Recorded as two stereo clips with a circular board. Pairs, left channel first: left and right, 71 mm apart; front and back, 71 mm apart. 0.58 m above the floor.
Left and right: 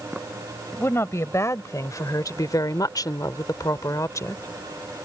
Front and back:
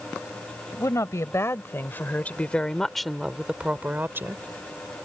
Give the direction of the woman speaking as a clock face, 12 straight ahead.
11 o'clock.